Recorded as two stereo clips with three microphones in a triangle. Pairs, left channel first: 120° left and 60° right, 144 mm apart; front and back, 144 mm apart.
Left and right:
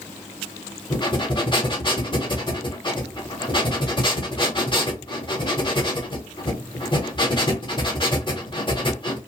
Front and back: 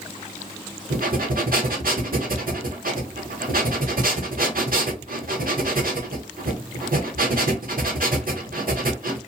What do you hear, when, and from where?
0.9 s breathing: 175° left, 0.9 m